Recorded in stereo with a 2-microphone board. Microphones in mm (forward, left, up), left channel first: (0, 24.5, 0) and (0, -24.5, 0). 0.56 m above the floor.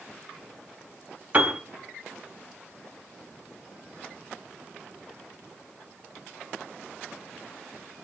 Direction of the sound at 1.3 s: 30° right (ahead or behind).